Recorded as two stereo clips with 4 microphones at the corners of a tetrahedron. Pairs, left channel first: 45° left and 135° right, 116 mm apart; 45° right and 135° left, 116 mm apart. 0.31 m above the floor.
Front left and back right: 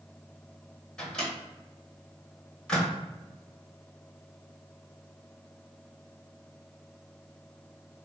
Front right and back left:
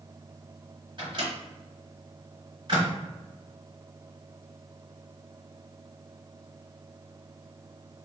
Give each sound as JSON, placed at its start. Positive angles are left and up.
{"t": 1.0, "sound": "a microwave", "azimuth_deg": 125, "distance_m": 0.9}